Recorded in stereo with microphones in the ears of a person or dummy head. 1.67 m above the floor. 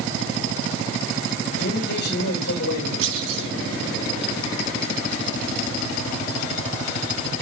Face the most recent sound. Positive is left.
turn(degrees=-70)  # may be behind; listen again after turning